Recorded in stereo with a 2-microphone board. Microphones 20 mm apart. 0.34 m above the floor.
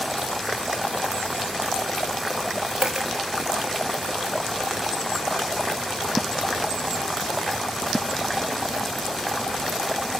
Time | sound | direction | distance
2.8 | a dropped coin | 35° right (ahead or behind) | 2.5 m